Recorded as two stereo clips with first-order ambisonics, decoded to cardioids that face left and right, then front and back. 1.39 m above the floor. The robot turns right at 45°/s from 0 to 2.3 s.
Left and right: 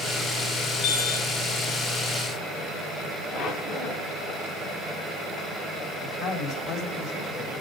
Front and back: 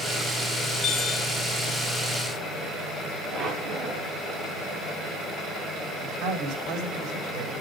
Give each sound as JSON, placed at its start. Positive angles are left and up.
{"t": 0.8, "sound": "a chime", "azimuth_deg": 50, "distance_m": 6.5}
{"t": 3.3, "sound": "a squeak", "azimuth_deg": 120, "distance_m": 4.0}
{"t": 6.0, "sound": "a man speaking", "azimuth_deg": 135, "distance_m": 3.5}